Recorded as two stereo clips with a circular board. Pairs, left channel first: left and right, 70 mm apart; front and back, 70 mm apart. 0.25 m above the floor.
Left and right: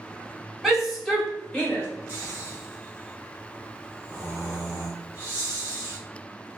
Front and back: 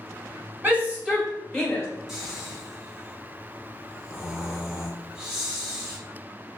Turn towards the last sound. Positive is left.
turn(degrees=-100)